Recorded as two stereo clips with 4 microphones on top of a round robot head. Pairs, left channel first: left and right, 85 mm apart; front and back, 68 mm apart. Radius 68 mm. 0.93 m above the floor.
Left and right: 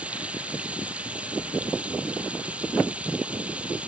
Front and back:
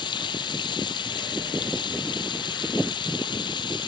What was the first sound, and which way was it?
Running water, 10° right.